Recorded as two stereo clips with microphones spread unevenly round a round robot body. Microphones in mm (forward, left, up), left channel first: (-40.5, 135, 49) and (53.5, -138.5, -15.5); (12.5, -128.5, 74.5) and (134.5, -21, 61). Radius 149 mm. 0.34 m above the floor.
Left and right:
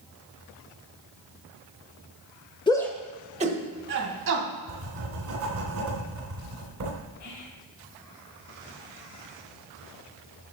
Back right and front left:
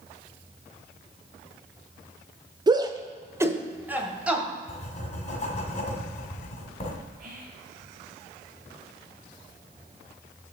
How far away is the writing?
About 2 m.